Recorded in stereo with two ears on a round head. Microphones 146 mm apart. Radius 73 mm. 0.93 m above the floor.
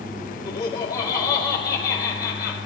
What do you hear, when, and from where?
0.5 s laughter: 25° left (ahead or behind), 2.5 m